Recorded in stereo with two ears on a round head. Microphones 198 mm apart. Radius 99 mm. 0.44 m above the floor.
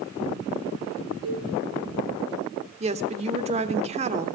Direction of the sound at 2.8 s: 30° right (ahead or behind).